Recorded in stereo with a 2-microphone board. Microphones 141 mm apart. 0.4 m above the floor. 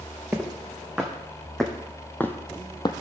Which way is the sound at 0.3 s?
10° right (ahead or behind).